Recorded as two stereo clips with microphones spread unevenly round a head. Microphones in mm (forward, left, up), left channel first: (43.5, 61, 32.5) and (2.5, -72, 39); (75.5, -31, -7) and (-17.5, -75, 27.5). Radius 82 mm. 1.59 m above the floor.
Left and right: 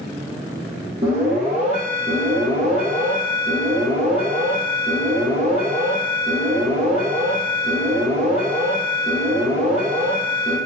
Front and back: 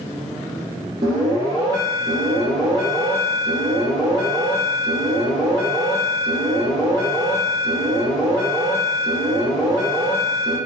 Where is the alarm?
155° right, 0.9 m.